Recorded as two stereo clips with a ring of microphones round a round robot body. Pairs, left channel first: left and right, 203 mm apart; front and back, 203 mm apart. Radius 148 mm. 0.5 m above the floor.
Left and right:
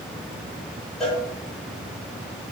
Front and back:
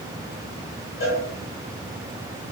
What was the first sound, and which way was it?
A cowbell, 5° left.